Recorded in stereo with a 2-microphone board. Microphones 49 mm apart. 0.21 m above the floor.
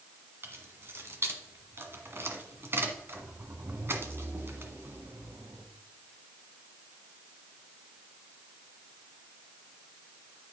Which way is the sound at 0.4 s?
50° right (ahead or behind).